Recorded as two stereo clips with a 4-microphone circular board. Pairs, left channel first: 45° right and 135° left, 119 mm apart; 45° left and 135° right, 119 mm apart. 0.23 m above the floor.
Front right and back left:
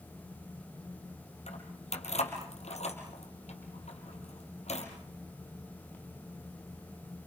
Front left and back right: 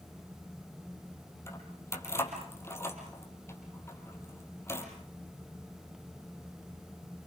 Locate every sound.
1.5 s keys jangling: 25° right, 4.5 m